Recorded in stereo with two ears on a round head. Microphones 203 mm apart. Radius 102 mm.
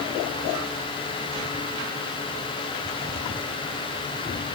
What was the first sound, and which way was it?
Only background noise.